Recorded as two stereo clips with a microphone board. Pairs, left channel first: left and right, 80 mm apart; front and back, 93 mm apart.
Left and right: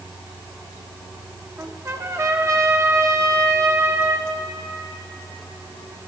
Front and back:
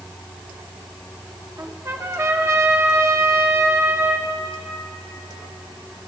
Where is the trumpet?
130° right, 0.8 m.